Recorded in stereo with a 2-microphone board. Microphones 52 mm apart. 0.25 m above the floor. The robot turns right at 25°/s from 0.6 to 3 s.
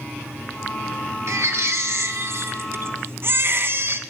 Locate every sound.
1.3 s a baby crying: 100° right, 1.2 m; by 4.0 s 60° right, 1.2 m